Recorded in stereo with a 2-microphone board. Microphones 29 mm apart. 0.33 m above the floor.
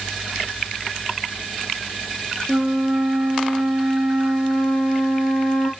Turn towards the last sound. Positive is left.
turn(degrees=15)  # may be behind; listen again after turning